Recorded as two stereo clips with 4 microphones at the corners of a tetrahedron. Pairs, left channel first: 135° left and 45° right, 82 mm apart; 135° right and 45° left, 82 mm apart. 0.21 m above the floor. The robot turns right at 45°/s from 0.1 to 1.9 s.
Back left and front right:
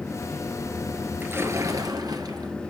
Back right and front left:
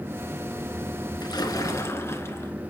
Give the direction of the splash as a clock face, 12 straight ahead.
4 o'clock.